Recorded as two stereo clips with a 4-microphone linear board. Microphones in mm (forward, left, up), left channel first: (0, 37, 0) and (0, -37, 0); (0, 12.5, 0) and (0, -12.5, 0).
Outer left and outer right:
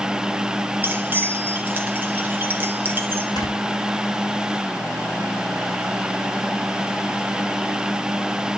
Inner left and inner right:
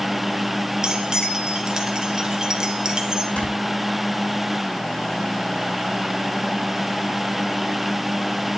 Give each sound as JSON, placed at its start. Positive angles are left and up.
{"t": 0.8, "sound": "keys jangling", "side_deg": -30, "distance_m": 2.0}
{"t": 3.4, "sound": "snoring", "side_deg": 70, "distance_m": 4.0}